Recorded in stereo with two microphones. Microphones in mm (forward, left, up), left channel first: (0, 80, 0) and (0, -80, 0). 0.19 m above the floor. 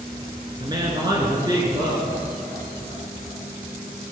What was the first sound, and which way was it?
A woman speaking, 25° right (ahead or behind).